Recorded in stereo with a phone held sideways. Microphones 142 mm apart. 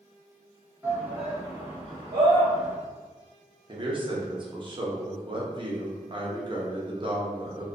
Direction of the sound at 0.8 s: 10° right (ahead or behind).